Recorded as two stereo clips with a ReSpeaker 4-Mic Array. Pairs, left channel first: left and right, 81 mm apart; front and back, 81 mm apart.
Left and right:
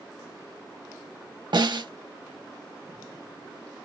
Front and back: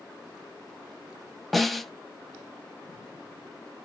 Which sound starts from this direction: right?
A snare drum, at 1.5 s.